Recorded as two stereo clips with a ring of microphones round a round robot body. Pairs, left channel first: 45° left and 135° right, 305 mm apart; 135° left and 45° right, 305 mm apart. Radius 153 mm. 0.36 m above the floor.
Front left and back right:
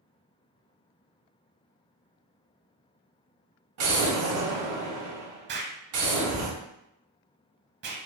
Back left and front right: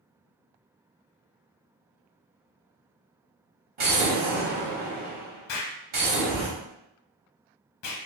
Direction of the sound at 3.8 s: 100° right.